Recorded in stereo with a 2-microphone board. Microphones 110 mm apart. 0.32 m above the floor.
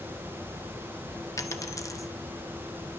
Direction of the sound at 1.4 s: 30° left (ahead or behind).